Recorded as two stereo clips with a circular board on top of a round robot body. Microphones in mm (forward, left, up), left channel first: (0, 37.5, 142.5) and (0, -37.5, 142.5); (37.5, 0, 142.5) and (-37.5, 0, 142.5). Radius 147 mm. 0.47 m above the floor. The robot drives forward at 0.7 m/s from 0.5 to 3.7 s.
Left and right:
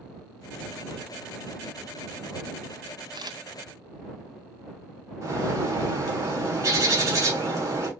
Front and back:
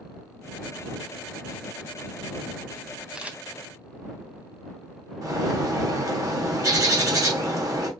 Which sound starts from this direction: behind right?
A bird, at 5.2 s.